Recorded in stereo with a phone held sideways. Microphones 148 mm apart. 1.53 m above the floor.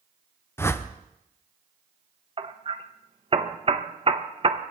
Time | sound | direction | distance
0.6 | a whoosh | 15° left (ahead or behind) | 0.7 m
2.4 | hammering | 40° right (ahead or behind) | 0.8 m